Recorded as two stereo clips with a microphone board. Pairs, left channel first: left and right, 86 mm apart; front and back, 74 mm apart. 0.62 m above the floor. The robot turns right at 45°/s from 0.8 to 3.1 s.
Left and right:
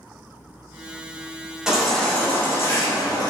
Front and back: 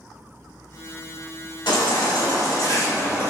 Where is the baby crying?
5° right, 1.3 m; by 3.3 s 60° left, 1.3 m.